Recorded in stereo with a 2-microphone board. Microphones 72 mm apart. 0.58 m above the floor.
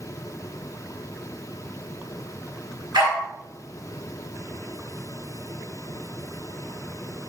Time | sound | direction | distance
2.9 | a dog barking | 85° right | 2.0 m